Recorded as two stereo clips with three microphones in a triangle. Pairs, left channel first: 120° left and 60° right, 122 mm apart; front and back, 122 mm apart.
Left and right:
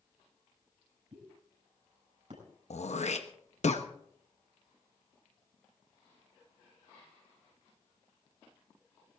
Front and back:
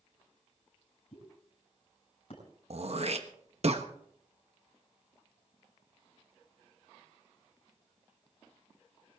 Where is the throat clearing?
145° left, 1.1 m.